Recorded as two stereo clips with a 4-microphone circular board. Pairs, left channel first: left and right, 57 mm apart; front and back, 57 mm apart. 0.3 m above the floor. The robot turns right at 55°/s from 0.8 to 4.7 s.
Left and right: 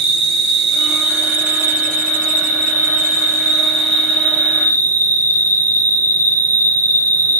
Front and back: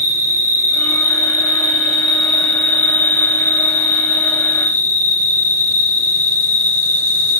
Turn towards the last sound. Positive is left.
turn(degrees=40)